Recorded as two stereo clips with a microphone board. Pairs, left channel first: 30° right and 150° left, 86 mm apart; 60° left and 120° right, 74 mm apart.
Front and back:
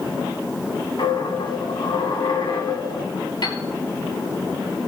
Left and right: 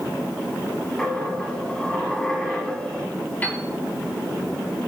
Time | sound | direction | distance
1.0 | a dropped coin | 20° right | 1.9 m
3.4 | a piano | 5° right | 3 m